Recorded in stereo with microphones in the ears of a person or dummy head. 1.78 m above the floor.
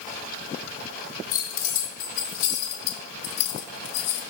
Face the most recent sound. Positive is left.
turn(degrees=70)  # may be behind; listen again after turning